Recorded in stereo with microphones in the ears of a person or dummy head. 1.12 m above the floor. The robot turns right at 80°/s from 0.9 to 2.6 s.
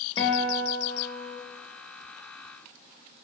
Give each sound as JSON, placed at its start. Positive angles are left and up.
{"t": 0.2, "sound": "a guitar", "azimuth_deg": 145, "distance_m": 1.2}